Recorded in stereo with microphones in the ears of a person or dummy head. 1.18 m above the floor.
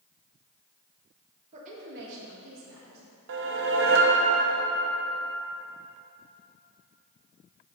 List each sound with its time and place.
1.5 s a woman speaking: 35° right (ahead or behind), 1.7 m; by 3.0 s 80° right, 3 m
3.3 s a whoosh: 60° right (ahead or behind), 0.6 m